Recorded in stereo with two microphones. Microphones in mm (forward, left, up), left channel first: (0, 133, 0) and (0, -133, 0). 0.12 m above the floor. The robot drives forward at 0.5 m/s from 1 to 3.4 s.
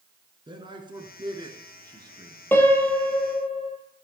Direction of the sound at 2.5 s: 10° left (ahead or behind).